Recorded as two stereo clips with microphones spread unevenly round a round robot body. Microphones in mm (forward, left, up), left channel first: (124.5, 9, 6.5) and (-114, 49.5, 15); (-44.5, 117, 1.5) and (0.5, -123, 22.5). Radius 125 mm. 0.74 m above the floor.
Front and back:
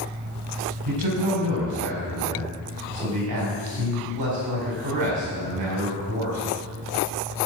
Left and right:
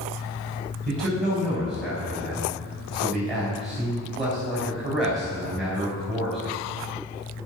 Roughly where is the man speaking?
Behind.